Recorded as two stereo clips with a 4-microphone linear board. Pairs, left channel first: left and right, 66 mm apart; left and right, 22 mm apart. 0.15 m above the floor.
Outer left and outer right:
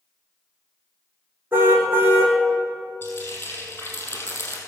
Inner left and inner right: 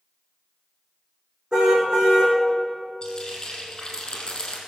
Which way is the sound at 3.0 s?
35° left (ahead or behind).